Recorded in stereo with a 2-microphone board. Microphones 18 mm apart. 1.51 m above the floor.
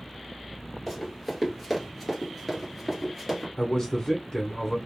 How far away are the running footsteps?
About 1.6 m.